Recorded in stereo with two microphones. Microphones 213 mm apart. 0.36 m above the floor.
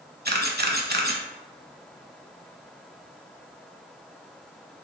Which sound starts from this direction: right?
A camera shutter, at 0.2 s.